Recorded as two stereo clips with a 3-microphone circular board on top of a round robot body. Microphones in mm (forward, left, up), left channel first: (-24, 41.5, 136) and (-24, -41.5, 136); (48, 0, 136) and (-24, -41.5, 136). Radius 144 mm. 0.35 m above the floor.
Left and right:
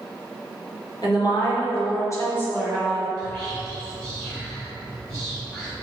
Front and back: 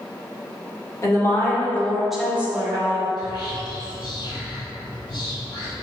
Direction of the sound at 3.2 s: 35° left.